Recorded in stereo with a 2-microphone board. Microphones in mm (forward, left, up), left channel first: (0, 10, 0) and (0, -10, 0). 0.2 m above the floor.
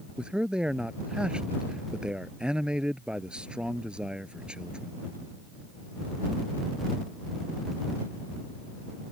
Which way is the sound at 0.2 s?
50° right (ahead or behind).